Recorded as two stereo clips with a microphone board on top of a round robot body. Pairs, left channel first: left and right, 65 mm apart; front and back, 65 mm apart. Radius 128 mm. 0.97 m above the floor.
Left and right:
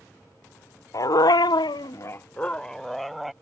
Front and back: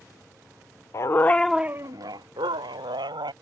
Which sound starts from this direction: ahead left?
A dog barking, at 0.9 s.